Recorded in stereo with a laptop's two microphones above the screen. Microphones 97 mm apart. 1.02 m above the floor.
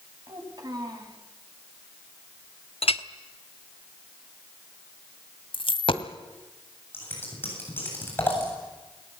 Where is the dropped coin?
60° left (ahead or behind), 1.5 m.